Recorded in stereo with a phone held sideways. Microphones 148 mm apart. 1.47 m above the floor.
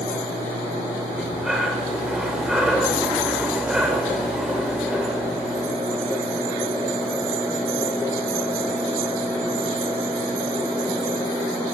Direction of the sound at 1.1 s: 5° right (ahead or behind).